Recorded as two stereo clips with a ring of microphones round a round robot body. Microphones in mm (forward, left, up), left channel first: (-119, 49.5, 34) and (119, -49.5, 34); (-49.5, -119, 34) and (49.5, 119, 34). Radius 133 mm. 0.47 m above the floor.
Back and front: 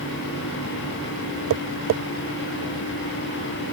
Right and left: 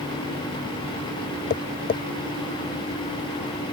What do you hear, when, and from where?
1.5 s tapping: 55° right